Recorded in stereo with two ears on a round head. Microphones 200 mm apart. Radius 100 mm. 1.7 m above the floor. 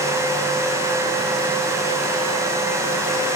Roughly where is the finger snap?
I don't hear a finger snap.